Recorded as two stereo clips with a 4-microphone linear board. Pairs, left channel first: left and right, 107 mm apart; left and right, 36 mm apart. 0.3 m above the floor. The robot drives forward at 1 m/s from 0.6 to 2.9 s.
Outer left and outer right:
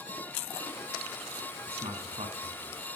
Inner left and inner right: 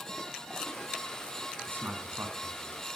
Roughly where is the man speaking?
Right.